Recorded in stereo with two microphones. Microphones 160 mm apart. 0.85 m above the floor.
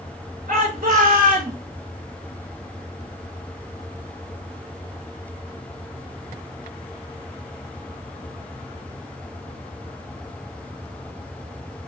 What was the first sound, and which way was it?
A shout, 55° right (ahead or behind).